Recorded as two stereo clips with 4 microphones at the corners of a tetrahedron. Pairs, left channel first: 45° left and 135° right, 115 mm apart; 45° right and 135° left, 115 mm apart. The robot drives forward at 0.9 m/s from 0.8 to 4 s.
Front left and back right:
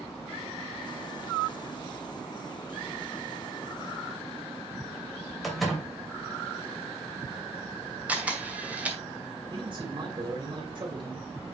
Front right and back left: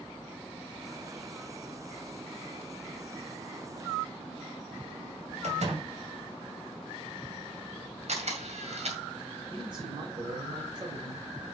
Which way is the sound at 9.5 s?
Straight behind.